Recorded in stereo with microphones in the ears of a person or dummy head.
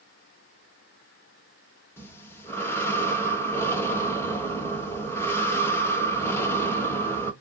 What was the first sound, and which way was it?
Breathing, 10° left (ahead or behind).